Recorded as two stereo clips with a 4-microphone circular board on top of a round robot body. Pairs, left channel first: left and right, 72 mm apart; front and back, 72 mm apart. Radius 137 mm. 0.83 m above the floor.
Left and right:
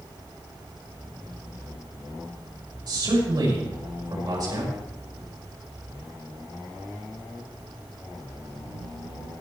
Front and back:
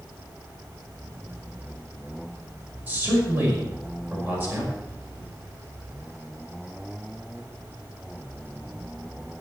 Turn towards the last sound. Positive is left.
turn(degrees=-115)